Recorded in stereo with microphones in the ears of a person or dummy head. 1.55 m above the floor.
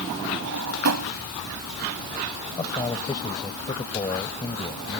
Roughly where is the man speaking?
Left.